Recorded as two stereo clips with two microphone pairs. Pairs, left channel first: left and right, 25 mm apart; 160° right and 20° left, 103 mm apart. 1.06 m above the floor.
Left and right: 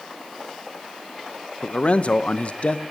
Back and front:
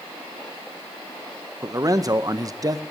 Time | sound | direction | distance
1.6 | a man speaking | 70° left | 0.8 m